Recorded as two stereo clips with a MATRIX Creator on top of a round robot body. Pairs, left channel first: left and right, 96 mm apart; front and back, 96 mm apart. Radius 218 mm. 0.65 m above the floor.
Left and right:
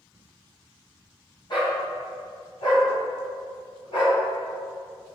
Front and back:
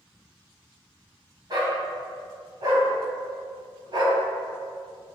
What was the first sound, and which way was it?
A dog barking, 130° left.